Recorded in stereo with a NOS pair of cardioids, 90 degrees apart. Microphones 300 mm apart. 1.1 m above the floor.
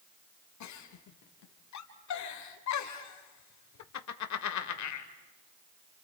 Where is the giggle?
70° left, 2 m.